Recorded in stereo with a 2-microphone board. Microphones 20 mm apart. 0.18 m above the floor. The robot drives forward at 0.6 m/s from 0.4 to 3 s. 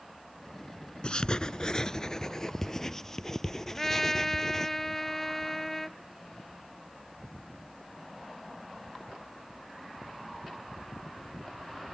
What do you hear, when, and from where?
1.0 s writing: 50° left (ahead or behind); by 4.7 s 20° left (ahead or behind)
3.7 s a trumpet: 15° left (ahead or behind)